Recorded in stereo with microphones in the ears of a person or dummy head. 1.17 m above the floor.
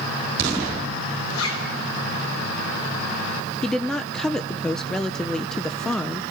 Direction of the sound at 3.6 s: 5° left (ahead or behind).